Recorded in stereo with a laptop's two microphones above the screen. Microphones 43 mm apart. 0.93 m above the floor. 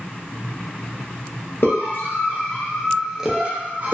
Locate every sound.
1.6 s a scream: 55° left (ahead or behind), 1.0 m; by 3.9 s 40° right (ahead or behind), 0.8 m